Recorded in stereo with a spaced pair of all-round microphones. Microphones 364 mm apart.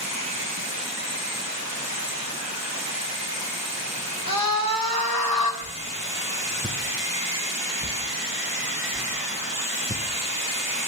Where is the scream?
70° left (ahead or behind), 2.5 m.